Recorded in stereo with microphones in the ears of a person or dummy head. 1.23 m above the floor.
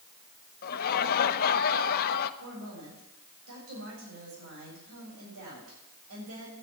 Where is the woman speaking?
75° right (ahead or behind), 7.5 m.